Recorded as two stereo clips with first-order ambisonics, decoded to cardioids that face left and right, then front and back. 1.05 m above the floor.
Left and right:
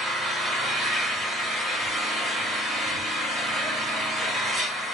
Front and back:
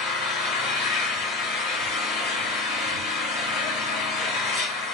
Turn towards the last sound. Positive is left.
turn(degrees=15)